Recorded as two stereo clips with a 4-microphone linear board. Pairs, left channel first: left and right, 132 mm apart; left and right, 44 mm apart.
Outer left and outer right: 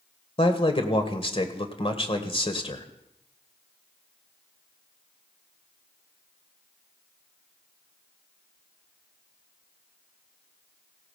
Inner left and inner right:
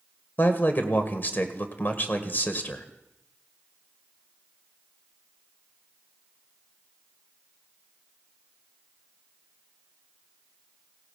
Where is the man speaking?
45° left (ahead or behind), 1.7 m.